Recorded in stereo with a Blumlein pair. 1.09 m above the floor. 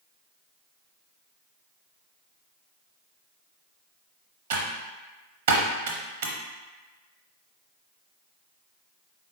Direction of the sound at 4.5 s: 55° right.